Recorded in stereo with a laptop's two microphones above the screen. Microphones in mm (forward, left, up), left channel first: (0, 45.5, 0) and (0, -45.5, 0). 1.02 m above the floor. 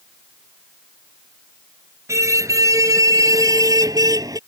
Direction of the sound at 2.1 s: 35° right (ahead or behind).